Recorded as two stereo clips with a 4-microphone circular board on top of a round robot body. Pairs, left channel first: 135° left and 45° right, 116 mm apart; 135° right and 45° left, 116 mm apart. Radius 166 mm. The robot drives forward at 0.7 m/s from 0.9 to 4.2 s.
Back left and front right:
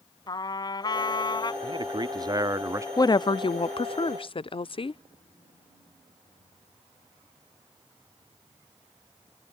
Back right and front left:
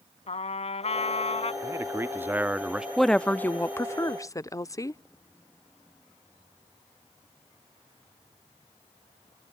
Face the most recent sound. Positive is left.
turn(degrees=165)